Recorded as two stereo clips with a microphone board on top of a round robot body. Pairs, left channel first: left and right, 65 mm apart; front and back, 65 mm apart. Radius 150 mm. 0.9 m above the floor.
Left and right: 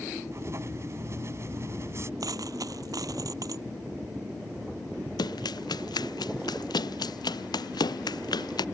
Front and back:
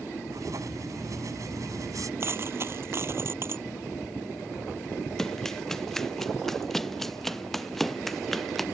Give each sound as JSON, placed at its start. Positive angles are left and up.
{"t": 0.3, "sound": "writing", "azimuth_deg": -145}
{"t": 2.2, "sound": "a dropped coin", "azimuth_deg": -130}
{"t": 5.2, "sound": "running footsteps", "azimuth_deg": 85}